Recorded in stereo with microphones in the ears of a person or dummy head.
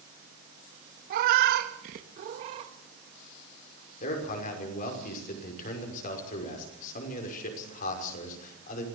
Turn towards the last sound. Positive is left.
turn(degrees=45)  # may be behind; listen again after turning